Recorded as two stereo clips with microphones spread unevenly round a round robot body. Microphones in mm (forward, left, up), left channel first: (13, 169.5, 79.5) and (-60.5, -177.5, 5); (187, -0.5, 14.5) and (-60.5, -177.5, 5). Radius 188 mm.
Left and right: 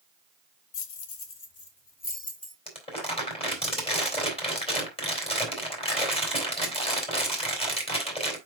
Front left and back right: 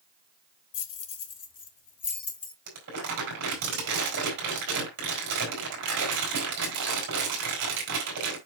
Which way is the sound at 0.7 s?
35° left.